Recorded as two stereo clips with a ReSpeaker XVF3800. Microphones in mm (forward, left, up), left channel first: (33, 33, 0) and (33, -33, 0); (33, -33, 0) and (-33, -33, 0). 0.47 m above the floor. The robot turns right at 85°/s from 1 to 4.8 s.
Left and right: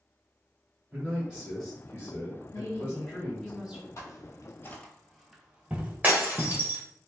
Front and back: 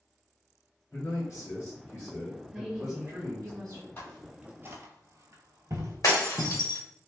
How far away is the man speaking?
About 1.5 m.